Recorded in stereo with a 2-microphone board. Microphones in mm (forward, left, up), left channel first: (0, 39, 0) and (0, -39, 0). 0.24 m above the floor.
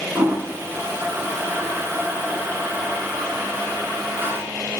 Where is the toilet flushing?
30° right (ahead or behind), 0.6 m.